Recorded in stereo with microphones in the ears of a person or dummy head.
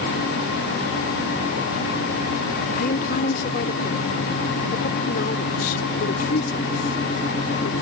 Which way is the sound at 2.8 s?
50° left (ahead or behind).